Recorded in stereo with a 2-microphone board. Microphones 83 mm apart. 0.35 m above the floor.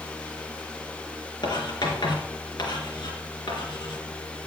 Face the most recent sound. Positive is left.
turn(degrees=60)  # may be behind; listen again after turning